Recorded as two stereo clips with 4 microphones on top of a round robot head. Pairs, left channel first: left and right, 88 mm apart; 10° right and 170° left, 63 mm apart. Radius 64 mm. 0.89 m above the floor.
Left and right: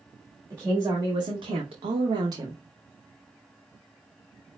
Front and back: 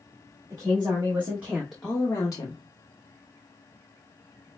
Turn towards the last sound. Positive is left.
turn(degrees=-25)